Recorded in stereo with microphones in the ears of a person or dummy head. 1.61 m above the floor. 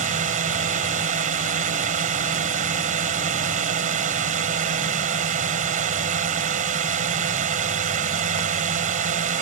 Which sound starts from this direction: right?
A drone, at 0.0 s.